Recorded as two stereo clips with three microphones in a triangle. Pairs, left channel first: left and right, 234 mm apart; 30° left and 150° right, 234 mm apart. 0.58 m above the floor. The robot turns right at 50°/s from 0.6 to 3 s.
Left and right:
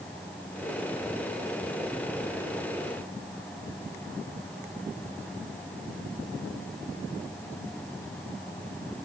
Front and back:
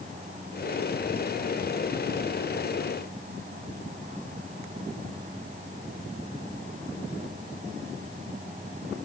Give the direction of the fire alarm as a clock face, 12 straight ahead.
I don't hear a fire alarm.